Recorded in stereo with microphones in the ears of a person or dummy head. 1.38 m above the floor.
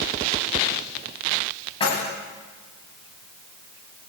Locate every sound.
1.8 s keys jangling: 25° left (ahead or behind), 8 m